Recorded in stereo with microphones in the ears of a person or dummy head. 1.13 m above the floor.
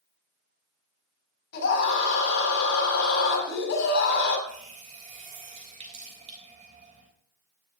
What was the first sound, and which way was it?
A scream, 55° left (ahead or behind).